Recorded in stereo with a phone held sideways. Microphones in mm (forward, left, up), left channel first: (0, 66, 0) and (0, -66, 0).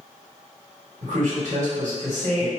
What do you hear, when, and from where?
1.0 s a man speaking: 70° right (ahead or behind), 1.4 m